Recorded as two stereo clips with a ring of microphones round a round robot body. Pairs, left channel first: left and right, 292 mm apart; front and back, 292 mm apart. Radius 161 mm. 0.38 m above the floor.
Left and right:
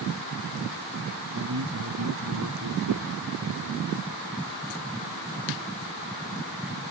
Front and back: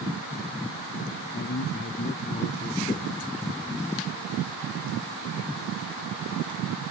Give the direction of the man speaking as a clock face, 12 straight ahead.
2 o'clock.